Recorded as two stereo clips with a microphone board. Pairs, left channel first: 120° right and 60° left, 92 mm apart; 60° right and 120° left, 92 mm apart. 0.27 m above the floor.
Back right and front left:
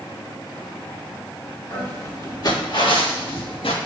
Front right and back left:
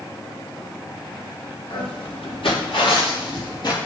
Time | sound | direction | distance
1.7 | footsteps | 55° right | 1.9 m